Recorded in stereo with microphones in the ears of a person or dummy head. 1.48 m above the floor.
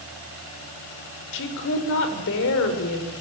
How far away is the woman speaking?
About 6 m.